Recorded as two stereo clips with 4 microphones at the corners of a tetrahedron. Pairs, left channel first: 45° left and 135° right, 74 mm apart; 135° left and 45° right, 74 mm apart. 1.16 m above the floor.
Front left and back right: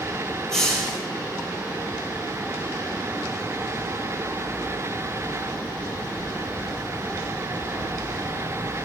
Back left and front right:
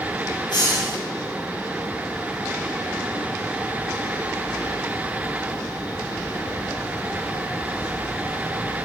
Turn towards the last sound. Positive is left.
turn(degrees=125)